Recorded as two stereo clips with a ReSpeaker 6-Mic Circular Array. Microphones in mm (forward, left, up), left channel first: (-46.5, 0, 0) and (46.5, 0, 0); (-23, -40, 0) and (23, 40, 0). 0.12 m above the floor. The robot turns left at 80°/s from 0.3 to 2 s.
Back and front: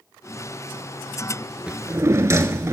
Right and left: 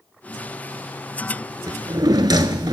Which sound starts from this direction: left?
A drawer, at 1.7 s.